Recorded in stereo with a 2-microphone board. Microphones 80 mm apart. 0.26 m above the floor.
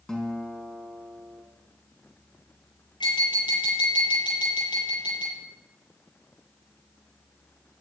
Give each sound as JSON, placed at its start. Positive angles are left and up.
{"t": 0.1, "sound": "a guitar", "side_deg": 5, "distance_m": 3.0}
{"t": 3.0, "sound": "tapping", "side_deg": 75, "distance_m": 8.0}